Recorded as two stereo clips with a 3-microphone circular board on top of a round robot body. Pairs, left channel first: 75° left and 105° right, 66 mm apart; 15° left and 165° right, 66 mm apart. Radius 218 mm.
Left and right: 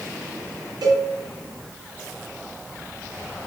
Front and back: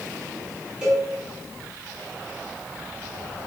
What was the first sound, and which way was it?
A cowbell, 90° right.